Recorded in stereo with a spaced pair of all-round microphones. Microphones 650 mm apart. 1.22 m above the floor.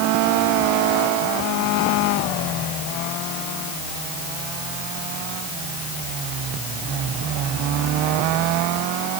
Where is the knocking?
No knocking in this recording.